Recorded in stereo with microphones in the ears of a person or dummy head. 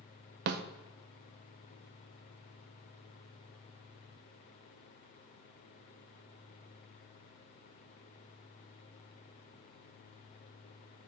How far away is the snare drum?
About 0.6 m.